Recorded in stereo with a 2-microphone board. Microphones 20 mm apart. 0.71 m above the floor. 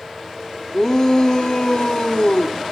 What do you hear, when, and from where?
0.7 s a shout: 30° left (ahead or behind), 1.7 m; by 2.6 s 55° left (ahead or behind), 1.9 m